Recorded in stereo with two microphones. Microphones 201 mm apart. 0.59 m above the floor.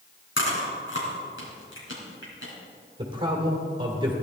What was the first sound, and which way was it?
Chewing, 70° left (ahead or behind).